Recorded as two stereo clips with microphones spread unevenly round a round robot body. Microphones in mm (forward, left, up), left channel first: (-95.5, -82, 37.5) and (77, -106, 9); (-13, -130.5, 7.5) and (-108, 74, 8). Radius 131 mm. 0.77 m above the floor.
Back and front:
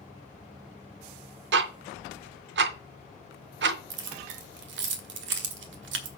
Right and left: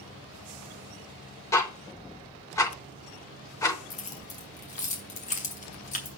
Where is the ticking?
10° left, 0.5 m.